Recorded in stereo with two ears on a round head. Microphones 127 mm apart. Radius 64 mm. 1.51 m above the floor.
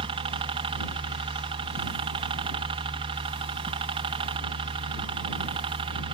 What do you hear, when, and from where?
0.0 s a helicopter: 40° right (ahead or behind)